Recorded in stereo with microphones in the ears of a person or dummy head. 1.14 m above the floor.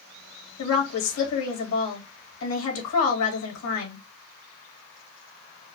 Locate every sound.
0.6 s a woman speaking: 75° left (ahead or behind), 2.5 m